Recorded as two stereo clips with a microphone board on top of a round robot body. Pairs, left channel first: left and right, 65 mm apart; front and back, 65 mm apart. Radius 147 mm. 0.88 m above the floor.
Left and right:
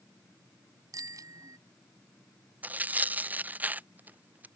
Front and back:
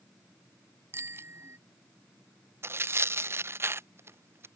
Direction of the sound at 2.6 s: 145° right.